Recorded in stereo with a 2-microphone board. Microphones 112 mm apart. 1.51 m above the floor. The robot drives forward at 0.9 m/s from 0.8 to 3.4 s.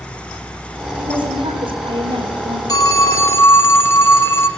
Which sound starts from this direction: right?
A woman speaking, at 1.0 s.